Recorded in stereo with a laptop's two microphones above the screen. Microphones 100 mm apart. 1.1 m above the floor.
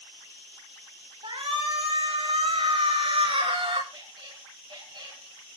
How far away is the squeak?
About 6 m.